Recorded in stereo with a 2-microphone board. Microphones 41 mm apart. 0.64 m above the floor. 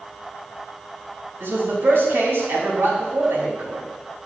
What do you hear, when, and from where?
1.4 s a man speaking: 70° right (ahead or behind), 3 m